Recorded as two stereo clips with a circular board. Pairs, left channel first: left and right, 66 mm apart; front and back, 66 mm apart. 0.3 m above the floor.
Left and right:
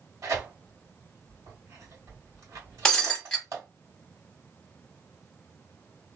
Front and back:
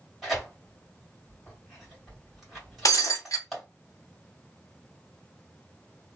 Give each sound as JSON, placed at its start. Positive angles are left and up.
{"t": 0.2, "sound": "tearing paper", "azimuth_deg": -95, "distance_m": 2.0}
{"t": 2.9, "sound": "breaking glass", "azimuth_deg": 15, "distance_m": 1.1}